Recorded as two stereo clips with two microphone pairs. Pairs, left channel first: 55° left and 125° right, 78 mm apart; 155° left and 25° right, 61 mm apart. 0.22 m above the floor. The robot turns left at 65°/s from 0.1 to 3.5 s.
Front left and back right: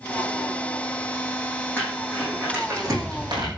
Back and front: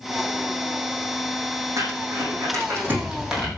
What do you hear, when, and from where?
1.8 s crumpling: 15° right, 7 m; by 3.5 s 125° right, 7 m